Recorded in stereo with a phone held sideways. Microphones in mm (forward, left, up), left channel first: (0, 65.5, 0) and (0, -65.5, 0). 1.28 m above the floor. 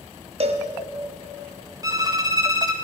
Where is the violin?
30° right (ahead or behind), 0.6 m.